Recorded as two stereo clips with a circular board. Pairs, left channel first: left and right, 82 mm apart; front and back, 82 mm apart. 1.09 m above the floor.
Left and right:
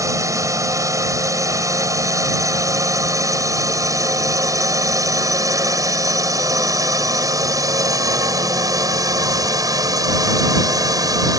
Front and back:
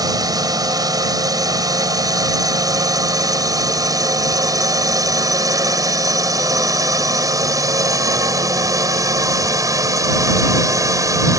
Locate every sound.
0.0 s a drone: 140° right; by 11.4 s 130° right